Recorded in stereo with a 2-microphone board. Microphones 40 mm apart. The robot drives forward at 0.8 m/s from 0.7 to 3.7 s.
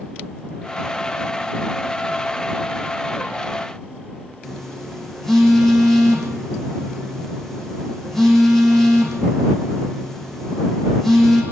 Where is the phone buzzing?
5° left (ahead or behind), 8.5 m.